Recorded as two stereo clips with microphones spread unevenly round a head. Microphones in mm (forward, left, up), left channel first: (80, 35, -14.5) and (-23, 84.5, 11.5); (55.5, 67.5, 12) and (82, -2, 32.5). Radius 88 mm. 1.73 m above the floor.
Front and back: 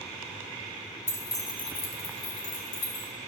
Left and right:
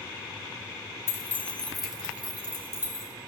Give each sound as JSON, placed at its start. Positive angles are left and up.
{"t": 1.1, "sound": "keys jangling", "azimuth_deg": 50, "distance_m": 1.1}